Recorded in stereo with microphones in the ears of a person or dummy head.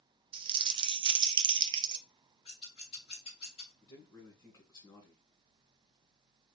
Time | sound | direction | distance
0.3 | crumpling | 25° right (ahead or behind) | 0.5 m
2.5 | scissors | 30° left (ahead or behind) | 1.6 m
3.8 | a man speaking | 20° left (ahead or behind) | 2 m